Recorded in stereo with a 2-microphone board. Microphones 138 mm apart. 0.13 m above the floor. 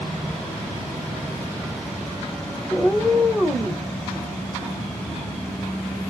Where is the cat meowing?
5° left (ahead or behind), 1.1 m.